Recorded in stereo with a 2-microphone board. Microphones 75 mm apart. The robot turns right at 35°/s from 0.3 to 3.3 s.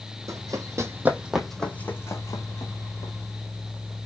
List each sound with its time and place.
0.3 s running footsteps: 50° right (ahead or behind), 0.7 m; by 3.1 s 75° left (ahead or behind), 1.5 m